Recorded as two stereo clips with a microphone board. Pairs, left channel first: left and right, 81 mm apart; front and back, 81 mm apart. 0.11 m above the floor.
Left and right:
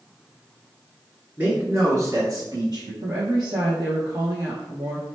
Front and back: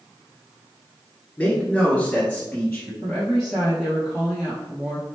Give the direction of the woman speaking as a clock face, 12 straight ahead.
3 o'clock.